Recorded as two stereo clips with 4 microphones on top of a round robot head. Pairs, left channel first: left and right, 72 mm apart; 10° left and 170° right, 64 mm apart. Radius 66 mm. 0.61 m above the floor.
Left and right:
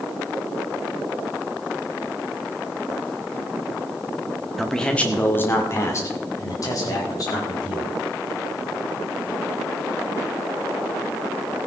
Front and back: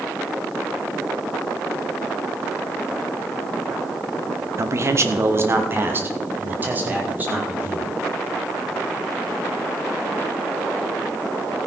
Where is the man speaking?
Straight behind, 1.6 m; by 7.9 s 125° left, 5 m.